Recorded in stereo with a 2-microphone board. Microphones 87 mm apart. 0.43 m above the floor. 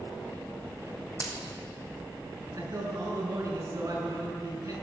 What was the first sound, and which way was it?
A dropped coin, 40° left (ahead or behind).